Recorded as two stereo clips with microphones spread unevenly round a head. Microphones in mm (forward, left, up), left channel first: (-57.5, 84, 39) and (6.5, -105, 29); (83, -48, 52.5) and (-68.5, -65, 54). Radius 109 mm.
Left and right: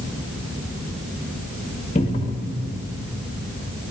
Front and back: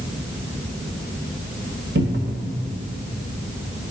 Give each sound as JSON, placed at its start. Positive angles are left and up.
{"t": 1.9, "sound": "a cupboard door", "azimuth_deg": 165, "distance_m": 1.4}